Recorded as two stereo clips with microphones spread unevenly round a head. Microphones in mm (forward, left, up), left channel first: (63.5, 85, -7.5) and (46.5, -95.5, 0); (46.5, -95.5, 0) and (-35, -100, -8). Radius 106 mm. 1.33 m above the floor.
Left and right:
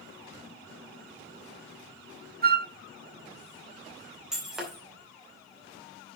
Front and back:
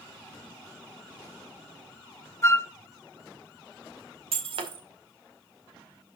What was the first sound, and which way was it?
A flute, 55° right.